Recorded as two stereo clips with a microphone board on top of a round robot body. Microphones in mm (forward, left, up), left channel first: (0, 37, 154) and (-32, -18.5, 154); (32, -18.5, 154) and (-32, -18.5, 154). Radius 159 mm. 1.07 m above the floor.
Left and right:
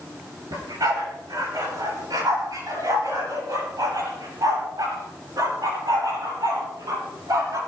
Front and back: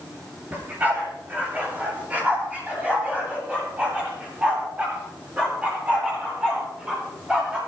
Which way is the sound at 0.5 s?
115° right.